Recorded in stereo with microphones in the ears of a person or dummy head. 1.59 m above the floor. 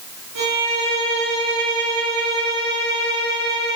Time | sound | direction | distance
0.3 | a violin | 65° right (ahead or behind) | 1.8 m